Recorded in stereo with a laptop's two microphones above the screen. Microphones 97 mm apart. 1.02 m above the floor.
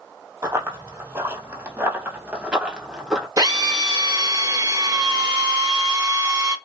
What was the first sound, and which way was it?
Running footsteps, 30° right (ahead or behind).